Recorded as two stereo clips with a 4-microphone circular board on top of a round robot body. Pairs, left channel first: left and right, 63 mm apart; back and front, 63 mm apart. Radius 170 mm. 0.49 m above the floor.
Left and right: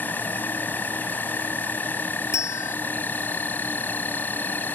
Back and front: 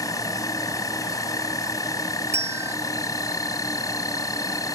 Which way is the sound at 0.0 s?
150° left.